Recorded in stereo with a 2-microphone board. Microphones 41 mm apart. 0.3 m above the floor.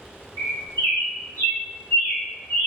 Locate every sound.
0.4 s a bird: 65° left (ahead or behind), 0.8 m